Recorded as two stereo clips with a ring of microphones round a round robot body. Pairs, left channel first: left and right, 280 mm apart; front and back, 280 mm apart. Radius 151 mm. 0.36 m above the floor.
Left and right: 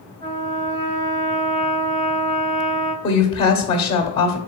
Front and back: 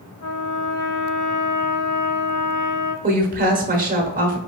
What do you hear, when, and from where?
0.2 s a trumpet: 35° right, 2 m
3.0 s a woman speaking: 145° left, 1.0 m